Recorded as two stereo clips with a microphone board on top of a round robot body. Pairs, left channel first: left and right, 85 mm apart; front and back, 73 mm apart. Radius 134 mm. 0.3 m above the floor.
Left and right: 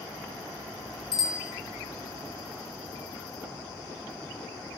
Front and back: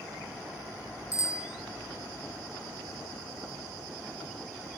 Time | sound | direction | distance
1.1 | a bicycle bell | 50° left | 8 m